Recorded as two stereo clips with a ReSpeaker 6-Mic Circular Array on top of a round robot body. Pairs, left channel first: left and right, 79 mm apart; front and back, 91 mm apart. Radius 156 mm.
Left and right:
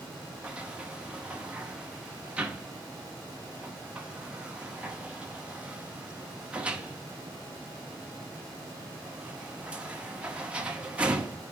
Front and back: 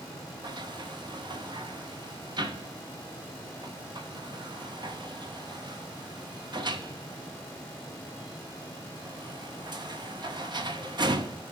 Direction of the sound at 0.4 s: 165° right.